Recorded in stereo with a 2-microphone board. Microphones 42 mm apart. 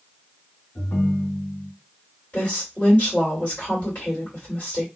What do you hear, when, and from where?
0.8 s a ringtone: 65° left (ahead or behind), 1.7 m
2.3 s a woman speaking: 30° left (ahead or behind), 2 m